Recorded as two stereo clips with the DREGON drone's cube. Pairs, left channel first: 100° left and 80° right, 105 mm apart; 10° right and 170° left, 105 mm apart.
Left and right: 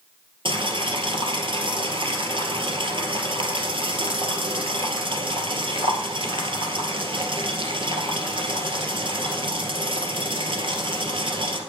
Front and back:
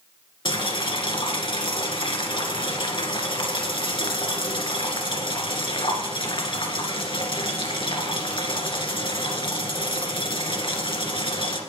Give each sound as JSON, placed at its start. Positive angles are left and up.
{"t": 0.5, "sound": "boiling", "azimuth_deg": -45, "distance_m": 1.9}